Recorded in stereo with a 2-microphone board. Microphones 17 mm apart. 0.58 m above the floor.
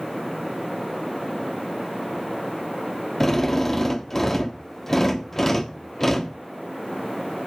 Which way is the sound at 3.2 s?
25° left (ahead or behind).